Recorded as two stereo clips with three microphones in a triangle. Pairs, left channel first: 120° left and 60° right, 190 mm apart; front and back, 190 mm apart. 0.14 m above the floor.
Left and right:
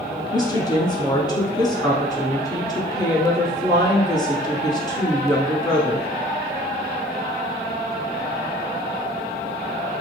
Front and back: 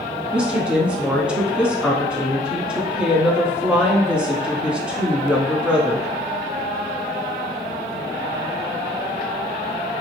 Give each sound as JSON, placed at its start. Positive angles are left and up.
{"t": 0.3, "sound": "a woman speaking", "azimuth_deg": 105, "distance_m": 1.1}